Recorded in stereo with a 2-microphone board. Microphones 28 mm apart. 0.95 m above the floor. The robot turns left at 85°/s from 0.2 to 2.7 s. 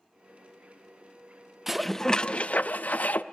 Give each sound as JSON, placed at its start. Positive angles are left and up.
{"t": 1.7, "sound": "dishes clattering", "azimuth_deg": -170, "distance_m": 0.6}